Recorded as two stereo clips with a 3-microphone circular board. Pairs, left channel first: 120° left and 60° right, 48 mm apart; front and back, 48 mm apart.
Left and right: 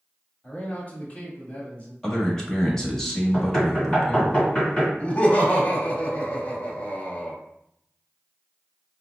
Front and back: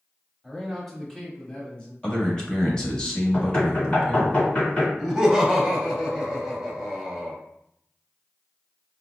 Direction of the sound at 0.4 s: 105° left.